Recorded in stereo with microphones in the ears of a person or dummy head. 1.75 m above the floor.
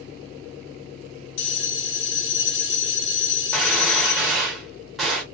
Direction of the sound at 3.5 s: 5° right (ahead or behind).